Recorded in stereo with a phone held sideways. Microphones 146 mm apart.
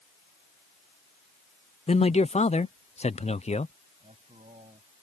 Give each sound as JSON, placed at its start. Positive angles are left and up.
{"t": 1.9, "sound": "a man speaking", "side_deg": 50}
{"t": 4.0, "sound": "a man speaking", "side_deg": -50}